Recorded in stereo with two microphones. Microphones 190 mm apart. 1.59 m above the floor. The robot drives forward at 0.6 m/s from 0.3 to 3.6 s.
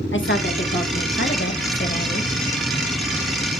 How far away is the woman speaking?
About 1.8 m.